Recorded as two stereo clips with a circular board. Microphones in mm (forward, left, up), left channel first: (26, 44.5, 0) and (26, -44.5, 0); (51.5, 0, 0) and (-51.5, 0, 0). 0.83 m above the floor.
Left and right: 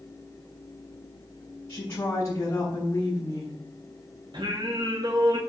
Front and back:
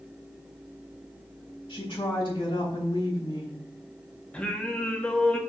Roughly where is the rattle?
I don't hear a rattle.